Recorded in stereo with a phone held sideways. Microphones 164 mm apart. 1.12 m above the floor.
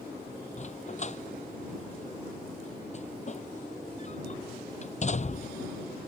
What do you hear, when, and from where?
0.6 s a dog barking: 45° left (ahead or behind)